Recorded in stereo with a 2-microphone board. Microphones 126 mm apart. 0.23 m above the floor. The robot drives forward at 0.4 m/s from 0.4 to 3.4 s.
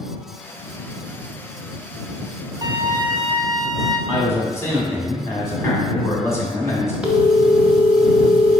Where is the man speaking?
20° left (ahead or behind), 1.4 m.